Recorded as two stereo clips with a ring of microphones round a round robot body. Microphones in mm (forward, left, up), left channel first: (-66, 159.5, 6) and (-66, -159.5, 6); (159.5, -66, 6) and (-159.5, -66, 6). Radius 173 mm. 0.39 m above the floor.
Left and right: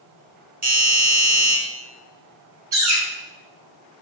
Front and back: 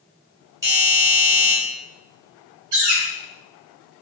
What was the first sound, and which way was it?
A doorbell, 115° right.